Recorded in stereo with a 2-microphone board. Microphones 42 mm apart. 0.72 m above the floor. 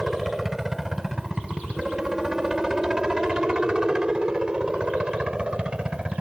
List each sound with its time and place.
0.0 s a helicopter: 5° right (ahead or behind); by 6.2 s 25° right (ahead or behind)